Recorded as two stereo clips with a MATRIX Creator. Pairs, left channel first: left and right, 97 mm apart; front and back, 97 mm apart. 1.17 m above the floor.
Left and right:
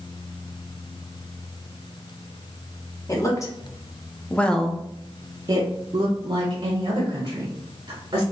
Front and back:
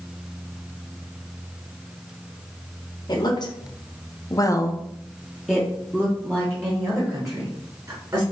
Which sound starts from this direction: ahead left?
A woman speaking, at 3.1 s.